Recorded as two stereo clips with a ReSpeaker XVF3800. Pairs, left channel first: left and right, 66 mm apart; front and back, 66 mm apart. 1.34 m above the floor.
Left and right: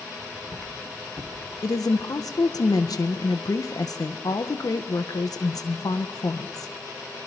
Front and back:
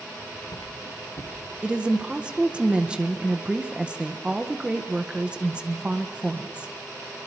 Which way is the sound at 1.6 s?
105° left.